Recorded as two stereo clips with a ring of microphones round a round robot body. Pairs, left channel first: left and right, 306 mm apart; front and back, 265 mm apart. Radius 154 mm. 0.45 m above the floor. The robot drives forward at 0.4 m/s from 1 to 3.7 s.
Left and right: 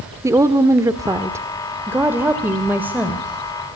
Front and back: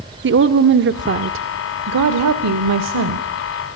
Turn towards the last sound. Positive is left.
turn(degrees=-175)